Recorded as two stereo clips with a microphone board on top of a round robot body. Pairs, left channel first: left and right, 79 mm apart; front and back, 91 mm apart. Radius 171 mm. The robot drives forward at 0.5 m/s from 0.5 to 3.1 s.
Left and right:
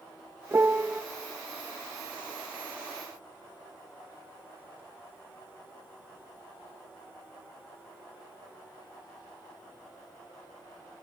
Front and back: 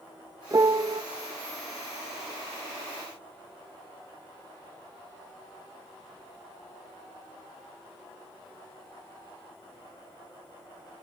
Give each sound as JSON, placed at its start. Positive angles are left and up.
{"t": 0.5, "sound": "a piano", "azimuth_deg": -140, "distance_m": 0.6}